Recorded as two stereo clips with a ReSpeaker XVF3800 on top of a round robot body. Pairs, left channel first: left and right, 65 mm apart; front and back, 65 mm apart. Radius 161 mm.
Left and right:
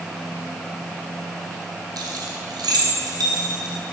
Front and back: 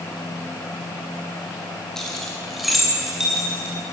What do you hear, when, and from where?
2.0 s keys jangling: 80° right, 2.5 m; by 3.8 s 100° right, 3.5 m